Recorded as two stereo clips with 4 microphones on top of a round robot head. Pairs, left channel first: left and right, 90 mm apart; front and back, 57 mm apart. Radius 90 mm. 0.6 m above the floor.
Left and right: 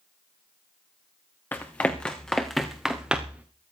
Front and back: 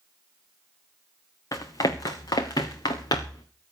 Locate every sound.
1.5 s running footsteps: 20° left, 2.5 m; by 3.5 s 15° right, 2.5 m